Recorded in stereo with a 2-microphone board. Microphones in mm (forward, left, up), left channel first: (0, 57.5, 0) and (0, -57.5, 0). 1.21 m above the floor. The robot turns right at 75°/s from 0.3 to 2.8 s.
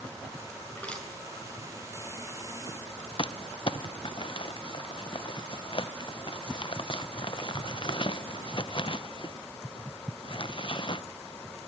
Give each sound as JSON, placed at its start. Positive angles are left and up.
{"t": 0.7, "sound": "crushing", "side_deg": 25, "distance_m": 8.0}
{"t": 3.2, "sound": "crumpling", "side_deg": 45, "distance_m": 0.7}